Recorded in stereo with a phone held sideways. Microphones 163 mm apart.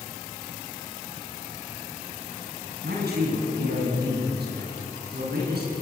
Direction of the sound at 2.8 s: 85° right.